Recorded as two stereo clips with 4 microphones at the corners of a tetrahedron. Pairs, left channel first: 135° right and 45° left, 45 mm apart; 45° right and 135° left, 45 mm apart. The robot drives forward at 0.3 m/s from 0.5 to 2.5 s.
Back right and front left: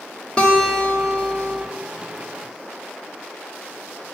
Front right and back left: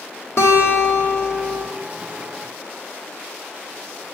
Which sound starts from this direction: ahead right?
A guitar, at 0.4 s.